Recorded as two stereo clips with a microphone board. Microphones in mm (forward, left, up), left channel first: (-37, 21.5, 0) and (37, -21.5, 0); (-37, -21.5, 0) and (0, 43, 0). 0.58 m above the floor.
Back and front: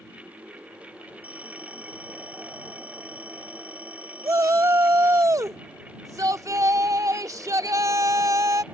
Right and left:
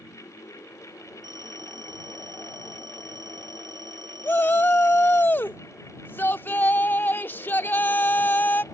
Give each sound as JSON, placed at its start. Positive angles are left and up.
{"t": 1.2, "sound": "a phone ringing", "azimuth_deg": 45}
{"t": 4.2, "sound": "a shout", "azimuth_deg": -65}